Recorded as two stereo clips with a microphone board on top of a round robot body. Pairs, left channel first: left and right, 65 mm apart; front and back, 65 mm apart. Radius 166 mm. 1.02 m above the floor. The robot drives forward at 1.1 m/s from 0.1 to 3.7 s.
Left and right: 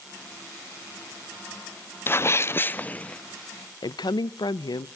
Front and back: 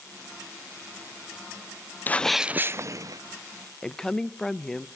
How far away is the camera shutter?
I don't hear a camera shutter.